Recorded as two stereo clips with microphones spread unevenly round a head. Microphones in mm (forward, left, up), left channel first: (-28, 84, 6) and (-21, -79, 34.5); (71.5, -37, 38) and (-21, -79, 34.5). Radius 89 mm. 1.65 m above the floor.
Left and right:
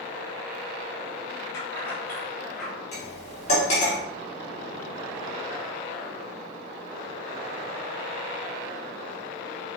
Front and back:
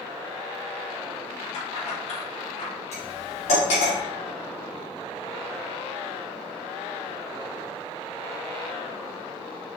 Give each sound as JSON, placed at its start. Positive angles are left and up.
{"t": 1.5, "sound": "keys jangling", "azimuth_deg": 15, "distance_m": 3.0}
{"t": 2.9, "sound": "cutlery clinking", "azimuth_deg": 35, "distance_m": 3.0}